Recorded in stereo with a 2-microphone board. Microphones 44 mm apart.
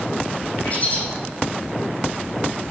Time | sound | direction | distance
0.6 | a bird | 35° left (ahead or behind) | 5 m